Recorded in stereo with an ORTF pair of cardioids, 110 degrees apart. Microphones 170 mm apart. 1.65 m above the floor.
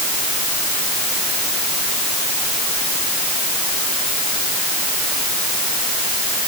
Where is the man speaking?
I don't hear a man speaking.